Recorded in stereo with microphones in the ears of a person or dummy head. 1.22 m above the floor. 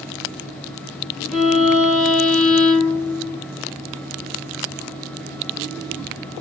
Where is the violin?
5° left (ahead or behind), 3.5 m.